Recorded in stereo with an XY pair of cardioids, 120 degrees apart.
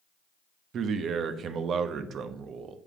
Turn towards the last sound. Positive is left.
turn(degrees=-55)